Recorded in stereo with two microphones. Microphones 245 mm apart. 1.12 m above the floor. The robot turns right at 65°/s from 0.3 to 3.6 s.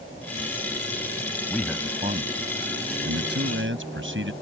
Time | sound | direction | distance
1.5 | a man speaking | 170° left | ?